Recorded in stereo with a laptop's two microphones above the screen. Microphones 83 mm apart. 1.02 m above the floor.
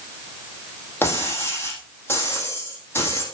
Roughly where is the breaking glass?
Left.